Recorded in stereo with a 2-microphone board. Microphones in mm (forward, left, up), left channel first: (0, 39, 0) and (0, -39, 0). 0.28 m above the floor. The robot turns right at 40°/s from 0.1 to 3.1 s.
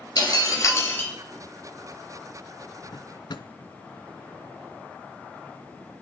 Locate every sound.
0.2 s breaking glass: 120° left, 3 m; by 1.1 s 155° left, 3 m
2.9 s a drawer: 80° left, 0.7 m; by 3.5 s 70° left (ahead or behind), 0.7 m